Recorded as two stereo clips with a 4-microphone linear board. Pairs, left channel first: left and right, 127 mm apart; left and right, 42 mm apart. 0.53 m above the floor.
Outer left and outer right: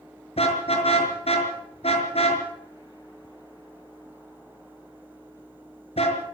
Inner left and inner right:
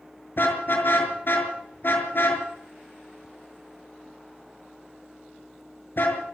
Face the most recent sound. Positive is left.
turn(degrees=55)  # may be behind; listen again after turning